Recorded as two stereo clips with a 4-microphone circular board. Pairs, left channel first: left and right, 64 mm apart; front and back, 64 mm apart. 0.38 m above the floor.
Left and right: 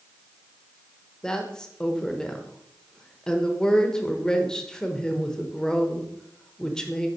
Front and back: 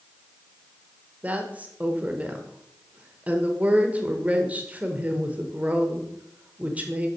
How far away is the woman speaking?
About 1.0 m.